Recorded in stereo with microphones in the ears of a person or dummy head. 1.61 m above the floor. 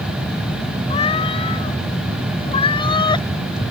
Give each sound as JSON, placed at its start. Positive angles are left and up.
{"t": 0.9, "sound": "a cat meowing", "side_deg": 30}